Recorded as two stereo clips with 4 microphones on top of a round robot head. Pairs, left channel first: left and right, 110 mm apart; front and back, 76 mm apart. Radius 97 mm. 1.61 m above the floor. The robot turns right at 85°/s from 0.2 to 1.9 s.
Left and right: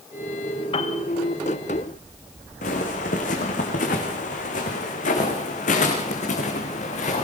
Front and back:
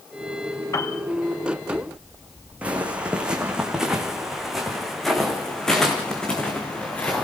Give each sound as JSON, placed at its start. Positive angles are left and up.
{"t": 0.7, "sound": "a piano", "azimuth_deg": 50, "distance_m": 2.0}
{"t": 2.6, "sound": "footsteps", "azimuth_deg": 110, "distance_m": 4.5}